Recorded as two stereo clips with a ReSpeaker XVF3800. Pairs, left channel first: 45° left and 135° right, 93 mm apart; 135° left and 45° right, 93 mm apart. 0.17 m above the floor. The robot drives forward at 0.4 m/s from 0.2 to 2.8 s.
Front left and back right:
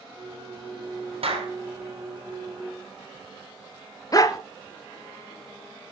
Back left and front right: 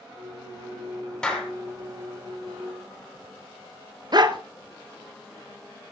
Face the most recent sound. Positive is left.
turn(degrees=-5)